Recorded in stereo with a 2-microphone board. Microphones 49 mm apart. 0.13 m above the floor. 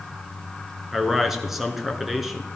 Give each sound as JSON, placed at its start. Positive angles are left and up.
{"t": 0.9, "sound": "a man speaking", "side_deg": -5, "distance_m": 1.5}